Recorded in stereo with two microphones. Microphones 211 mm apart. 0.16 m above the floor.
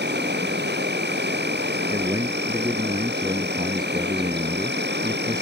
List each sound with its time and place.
0.0 s an insect: 55° right (ahead or behind)
1.9 s a man speaking: 20° right (ahead or behind)